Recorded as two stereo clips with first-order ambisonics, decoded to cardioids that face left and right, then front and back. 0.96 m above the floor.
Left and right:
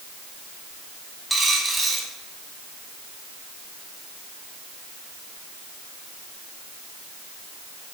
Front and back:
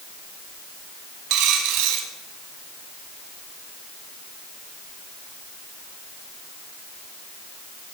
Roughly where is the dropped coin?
Behind.